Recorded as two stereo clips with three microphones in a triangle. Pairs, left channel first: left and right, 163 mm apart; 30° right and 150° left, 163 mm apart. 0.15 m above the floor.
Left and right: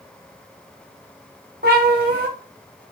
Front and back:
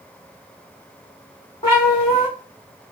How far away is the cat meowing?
About 2.5 m.